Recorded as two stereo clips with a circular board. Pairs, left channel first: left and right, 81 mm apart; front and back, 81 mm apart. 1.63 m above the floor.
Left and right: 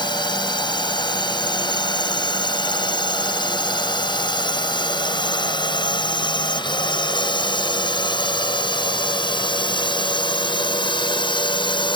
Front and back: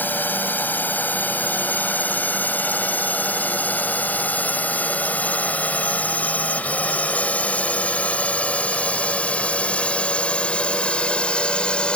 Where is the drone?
70° left; by 12.0 s 80° left.